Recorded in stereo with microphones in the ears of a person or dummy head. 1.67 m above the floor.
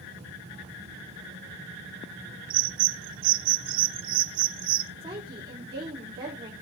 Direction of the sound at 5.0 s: 25° right (ahead or behind).